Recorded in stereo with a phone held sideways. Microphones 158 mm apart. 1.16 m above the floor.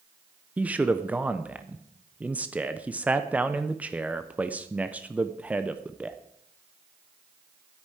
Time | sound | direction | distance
0.6 | a man speaking | 10° right (ahead or behind) | 0.7 m